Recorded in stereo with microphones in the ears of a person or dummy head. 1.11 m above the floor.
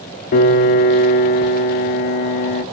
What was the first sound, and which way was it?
A piano, 40° left (ahead or behind).